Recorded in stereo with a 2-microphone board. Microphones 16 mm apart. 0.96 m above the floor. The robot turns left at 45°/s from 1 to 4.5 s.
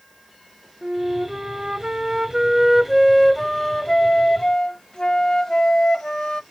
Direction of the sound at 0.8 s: 85° right.